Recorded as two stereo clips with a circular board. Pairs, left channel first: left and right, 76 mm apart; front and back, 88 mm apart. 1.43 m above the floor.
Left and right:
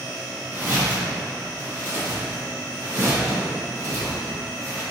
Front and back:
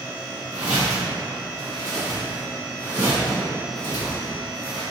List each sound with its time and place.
0.5 s footsteps: 115° right, 1.6 m; by 4.8 s 40° right, 2.5 m